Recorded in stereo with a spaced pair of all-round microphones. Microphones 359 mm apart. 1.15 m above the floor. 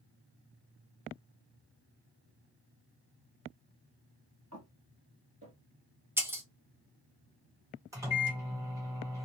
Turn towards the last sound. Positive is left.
turn(degrees=-10)  # may be behind; listen again after turning